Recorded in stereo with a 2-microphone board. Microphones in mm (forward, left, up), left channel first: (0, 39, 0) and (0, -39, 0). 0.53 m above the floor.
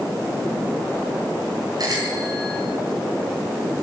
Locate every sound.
1.8 s a bicycle bell: 55° right (ahead or behind), 4.5 m